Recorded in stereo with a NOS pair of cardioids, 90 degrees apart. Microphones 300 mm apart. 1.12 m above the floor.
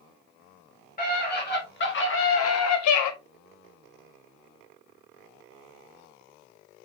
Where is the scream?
30° left, 4 m; by 3.1 s 75° left, 1.4 m.